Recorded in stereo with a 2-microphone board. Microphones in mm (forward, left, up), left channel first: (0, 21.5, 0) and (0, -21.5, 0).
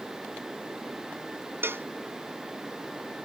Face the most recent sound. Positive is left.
turn(degrees=-60)  # may be behind; listen again after turning